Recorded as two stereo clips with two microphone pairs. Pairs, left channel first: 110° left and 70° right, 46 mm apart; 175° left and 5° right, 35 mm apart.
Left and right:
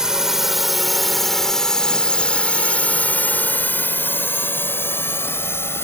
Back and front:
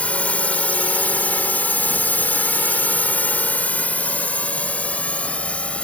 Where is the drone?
145° right; by 5.8 s 125° left.